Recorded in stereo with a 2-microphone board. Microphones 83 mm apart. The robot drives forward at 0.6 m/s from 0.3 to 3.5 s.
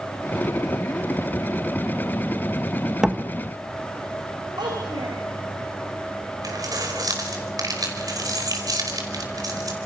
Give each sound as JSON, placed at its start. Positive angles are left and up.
{"t": 3.0, "sound": "a door slam", "side_deg": -10, "distance_m": 1.5}
{"t": 4.6, "sound": "a child speaking", "side_deg": -60, "distance_m": 4.5}
{"t": 6.4, "sound": "keys jangling", "side_deg": -50, "distance_m": 5.0}